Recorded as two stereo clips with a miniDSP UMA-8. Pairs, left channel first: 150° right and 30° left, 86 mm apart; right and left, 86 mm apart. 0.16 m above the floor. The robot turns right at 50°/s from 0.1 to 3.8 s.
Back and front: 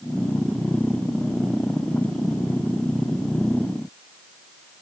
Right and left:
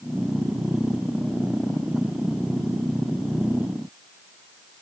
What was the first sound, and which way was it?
Only background noise.